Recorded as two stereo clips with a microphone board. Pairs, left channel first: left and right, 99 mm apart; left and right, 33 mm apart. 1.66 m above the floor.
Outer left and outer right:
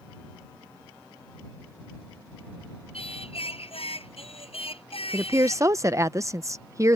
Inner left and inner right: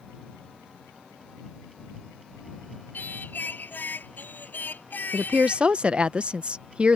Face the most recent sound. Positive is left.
turn(degrees=-30)  # may be behind; listen again after turning